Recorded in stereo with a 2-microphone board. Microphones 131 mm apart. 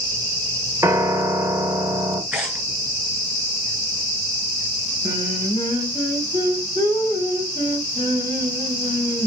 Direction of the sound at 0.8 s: 25° right (ahead or behind).